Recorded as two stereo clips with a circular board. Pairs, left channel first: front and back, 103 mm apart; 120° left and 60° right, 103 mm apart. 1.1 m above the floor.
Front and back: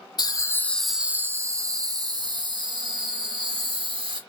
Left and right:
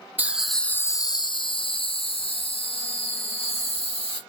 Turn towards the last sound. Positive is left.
turn(degrees=145)